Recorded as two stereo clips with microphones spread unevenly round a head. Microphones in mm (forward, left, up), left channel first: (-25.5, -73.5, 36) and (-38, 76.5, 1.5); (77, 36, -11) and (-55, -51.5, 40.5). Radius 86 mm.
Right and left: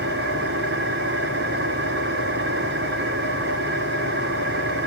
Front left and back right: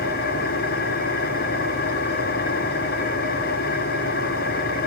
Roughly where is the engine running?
Left.